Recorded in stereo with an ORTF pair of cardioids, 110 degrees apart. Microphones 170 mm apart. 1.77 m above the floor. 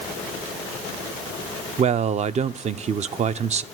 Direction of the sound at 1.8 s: 40° right.